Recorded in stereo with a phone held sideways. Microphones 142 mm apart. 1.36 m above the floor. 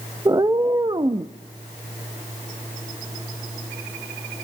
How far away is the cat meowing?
About 0.6 m.